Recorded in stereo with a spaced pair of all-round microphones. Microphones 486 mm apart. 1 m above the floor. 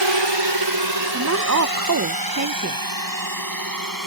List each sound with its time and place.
0.0 s a drone: 60° right (ahead or behind); by 4.1 s 40° right (ahead or behind)
1.1 s a woman speaking: 35° right (ahead or behind)